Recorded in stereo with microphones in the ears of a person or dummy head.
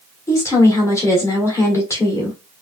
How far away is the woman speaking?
About 1.9 m.